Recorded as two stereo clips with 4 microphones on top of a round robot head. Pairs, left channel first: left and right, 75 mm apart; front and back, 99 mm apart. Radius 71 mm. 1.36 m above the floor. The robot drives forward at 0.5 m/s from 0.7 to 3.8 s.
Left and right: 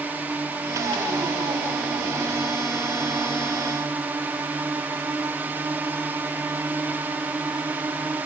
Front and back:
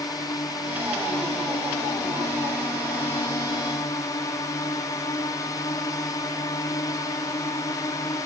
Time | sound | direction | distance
0.0 | a drone | 30° right | ?